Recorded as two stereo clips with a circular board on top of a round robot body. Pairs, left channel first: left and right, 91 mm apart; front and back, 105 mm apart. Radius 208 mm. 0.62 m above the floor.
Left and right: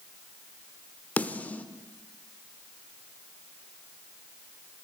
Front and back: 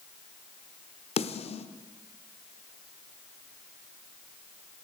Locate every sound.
1.2 s a snare drum: 15° left, 0.7 m